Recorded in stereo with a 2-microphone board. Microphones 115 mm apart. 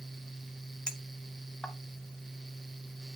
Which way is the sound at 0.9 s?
5° left (ahead or behind).